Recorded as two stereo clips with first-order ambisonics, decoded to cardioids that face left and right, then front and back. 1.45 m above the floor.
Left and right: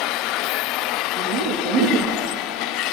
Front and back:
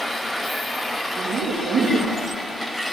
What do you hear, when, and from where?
1.2 s laughter: 120° right, 2.5 m